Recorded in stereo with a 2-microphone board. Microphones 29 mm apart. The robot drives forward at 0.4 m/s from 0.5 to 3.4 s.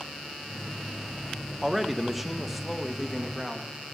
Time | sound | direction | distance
1.6 | a man speaking | 5° right (ahead or behind) | 0.7 m